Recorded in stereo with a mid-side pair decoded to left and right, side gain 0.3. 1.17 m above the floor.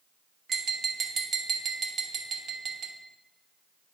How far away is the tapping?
About 1.0 m.